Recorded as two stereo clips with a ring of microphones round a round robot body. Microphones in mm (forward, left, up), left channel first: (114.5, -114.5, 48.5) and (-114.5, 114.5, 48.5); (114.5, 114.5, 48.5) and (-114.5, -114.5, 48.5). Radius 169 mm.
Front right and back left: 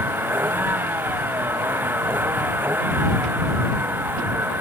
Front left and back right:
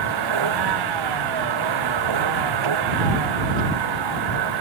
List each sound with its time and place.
0.0 s a vehicle: 140° right